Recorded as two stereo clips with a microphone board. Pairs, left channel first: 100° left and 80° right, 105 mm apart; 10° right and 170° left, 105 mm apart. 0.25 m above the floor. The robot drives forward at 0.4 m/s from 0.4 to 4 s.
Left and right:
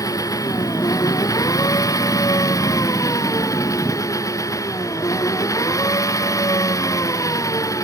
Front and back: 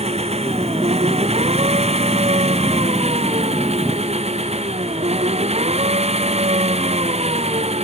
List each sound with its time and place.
0.0 s an engine running: 160° left